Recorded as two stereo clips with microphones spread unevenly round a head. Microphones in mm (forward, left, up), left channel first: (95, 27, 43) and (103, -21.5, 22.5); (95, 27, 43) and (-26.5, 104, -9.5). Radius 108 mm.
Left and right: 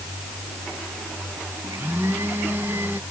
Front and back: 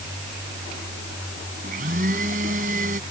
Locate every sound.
1.6 s a blender: 155° right